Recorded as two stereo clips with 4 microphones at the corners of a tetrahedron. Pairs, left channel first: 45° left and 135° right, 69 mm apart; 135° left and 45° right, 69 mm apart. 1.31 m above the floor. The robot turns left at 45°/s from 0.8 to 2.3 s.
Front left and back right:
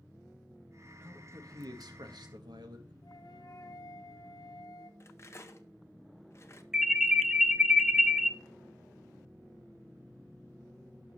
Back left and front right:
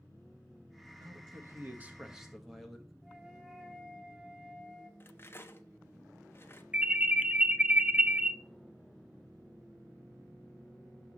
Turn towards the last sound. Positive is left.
turn(degrees=-65)